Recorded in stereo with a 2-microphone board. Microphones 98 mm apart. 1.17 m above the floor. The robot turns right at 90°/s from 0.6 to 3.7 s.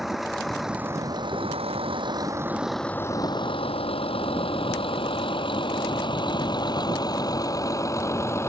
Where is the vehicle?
5° right (ahead or behind); by 8.5 s 30° left (ahead or behind).